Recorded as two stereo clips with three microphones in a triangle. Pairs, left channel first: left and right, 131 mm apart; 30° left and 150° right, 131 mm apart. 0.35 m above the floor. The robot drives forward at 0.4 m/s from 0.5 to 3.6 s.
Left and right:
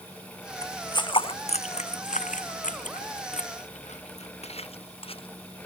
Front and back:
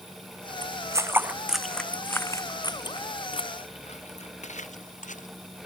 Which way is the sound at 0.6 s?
155° left.